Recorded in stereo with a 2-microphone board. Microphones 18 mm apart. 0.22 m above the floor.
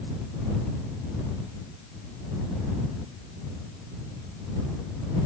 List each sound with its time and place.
Only background noise.